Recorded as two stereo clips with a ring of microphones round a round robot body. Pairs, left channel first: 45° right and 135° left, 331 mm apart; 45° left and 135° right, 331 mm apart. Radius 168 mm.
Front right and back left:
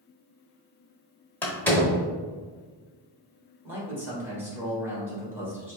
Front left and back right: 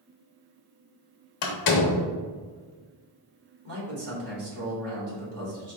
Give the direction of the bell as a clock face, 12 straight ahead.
I don't hear a bell.